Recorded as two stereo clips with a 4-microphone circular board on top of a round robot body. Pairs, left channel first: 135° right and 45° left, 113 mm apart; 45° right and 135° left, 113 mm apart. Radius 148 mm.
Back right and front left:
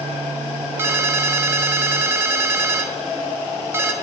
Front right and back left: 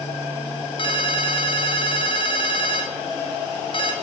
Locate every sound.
0.8 s a ringtone: 20° right, 1.2 m